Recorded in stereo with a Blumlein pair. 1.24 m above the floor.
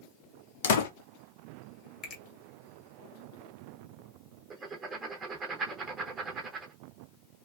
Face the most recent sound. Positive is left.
turn(degrees=-20)